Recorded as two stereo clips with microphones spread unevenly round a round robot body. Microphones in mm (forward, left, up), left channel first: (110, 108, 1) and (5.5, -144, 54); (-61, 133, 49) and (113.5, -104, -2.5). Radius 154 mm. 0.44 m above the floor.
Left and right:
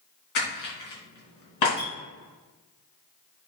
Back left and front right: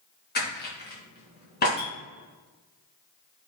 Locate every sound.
0.3 s crushing: 65° left, 3.5 m
1.8 s a clink: 70° left, 4 m